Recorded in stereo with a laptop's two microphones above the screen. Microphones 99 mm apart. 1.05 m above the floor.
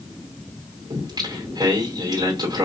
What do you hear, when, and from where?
0.9 s singing: 45° right (ahead or behind), 2.5 m